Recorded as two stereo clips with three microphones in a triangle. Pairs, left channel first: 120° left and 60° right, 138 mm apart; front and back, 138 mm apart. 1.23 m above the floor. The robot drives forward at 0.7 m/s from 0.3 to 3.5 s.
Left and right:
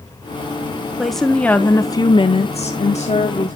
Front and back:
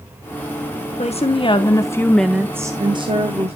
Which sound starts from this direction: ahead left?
A woman speaking, at 1.0 s.